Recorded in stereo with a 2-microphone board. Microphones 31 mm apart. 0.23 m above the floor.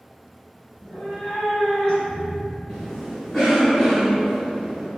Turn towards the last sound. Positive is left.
turn(degrees=35)  # may be behind; listen again after turning